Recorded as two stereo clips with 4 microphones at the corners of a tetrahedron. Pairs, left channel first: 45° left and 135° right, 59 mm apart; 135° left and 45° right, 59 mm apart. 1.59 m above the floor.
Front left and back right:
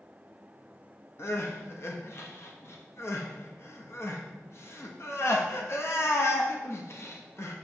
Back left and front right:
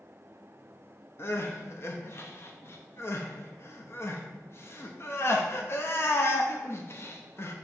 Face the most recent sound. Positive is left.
turn(degrees=90)